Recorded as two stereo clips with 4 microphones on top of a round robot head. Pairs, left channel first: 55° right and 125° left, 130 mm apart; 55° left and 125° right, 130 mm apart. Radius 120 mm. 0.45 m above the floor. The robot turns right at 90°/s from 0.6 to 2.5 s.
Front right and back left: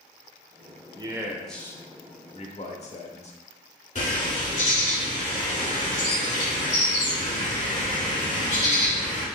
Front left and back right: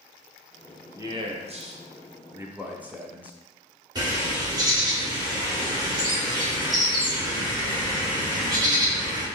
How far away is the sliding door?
No sliding door in this recording.